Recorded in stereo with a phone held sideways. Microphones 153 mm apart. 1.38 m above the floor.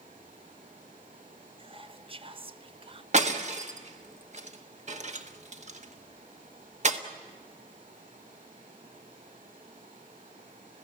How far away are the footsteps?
I don't hear footsteps.